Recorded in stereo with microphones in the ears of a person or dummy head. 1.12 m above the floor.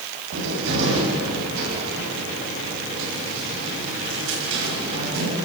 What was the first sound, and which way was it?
A cupboard door, 75° right (ahead or behind).